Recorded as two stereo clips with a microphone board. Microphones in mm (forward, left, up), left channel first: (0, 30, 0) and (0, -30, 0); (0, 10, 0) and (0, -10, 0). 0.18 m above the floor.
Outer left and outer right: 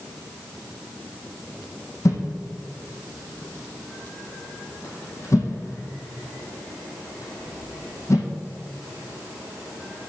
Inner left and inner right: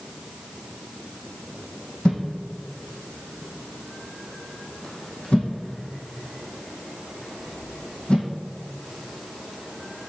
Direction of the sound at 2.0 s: 60° left (ahead or behind).